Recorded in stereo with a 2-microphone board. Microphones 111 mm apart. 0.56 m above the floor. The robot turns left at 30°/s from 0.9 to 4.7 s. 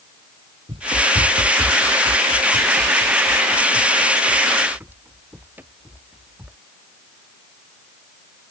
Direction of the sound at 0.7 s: 60° right (ahead or behind).